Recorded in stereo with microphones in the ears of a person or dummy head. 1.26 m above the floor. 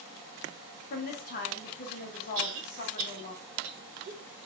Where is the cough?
85° right, 1.0 m.